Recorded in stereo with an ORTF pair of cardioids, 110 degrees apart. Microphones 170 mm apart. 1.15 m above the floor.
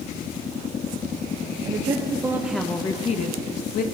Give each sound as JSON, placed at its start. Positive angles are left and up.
{"t": 1.6, "sound": "a woman speaking", "azimuth_deg": -35, "distance_m": 0.9}